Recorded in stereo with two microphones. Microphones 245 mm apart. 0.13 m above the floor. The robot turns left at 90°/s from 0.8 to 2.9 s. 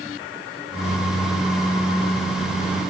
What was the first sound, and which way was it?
Only background noise.